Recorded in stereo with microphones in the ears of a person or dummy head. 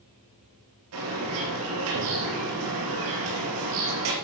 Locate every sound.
0.9 s a bird: 70° right (ahead or behind), 4.5 m